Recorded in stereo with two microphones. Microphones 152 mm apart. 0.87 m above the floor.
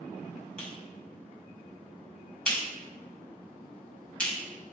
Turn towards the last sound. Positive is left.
turn(degrees=5)  # may be behind; listen again after turning